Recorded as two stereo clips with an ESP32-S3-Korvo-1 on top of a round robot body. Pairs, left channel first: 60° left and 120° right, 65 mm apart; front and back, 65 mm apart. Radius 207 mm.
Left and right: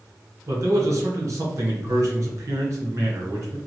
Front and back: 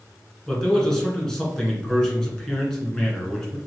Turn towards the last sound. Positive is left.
turn(degrees=-80)